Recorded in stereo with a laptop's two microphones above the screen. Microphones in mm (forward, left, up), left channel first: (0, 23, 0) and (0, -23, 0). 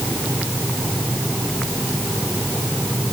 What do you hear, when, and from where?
Only background noise.